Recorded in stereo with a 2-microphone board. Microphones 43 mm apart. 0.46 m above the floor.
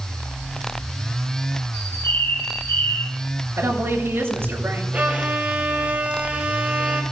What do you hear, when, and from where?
1.7 s a bird: 85° left, 2.5 m
3.6 s a woman speaking: 80° right, 7 m
4.9 s a violin: 40° right (ahead or behind), 2.5 m